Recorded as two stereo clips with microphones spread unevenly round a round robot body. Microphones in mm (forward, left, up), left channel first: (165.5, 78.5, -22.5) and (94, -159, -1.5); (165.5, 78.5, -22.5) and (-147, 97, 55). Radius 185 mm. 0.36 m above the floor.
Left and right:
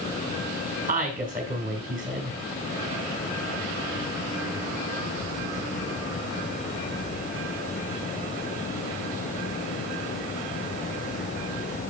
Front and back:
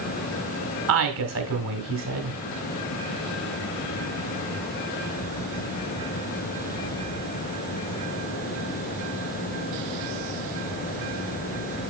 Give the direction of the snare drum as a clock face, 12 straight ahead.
I don't hear a snare drum.